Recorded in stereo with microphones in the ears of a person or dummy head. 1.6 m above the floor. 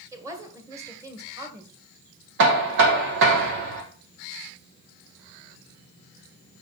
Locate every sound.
0.1 s a woman speaking: 10° right (ahead or behind), 1.5 m
2.4 s knocking: 70° right (ahead or behind), 1.7 m